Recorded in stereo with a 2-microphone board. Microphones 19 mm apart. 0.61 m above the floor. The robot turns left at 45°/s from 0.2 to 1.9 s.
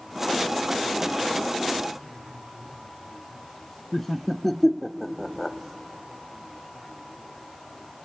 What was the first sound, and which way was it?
Laughter, 15° left (ahead or behind).